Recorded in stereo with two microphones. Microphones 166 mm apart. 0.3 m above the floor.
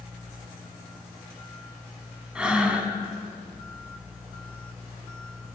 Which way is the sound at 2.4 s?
5° right (ahead or behind).